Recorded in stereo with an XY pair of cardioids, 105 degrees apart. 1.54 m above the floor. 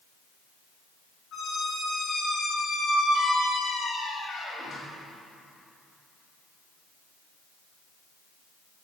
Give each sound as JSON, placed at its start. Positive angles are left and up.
{"t": 1.3, "sound": "a squeak", "azimuth_deg": 60, "distance_m": 5.5}